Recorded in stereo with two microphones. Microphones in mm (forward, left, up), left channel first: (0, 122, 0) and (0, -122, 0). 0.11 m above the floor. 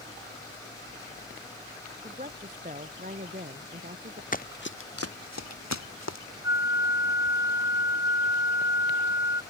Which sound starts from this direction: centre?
A flute, at 6.4 s.